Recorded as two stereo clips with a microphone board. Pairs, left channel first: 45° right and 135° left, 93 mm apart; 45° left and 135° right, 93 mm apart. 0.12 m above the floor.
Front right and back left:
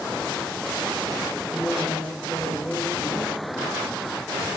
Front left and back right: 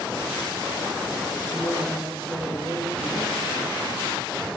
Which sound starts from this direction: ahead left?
A woman speaking, at 1.5 s.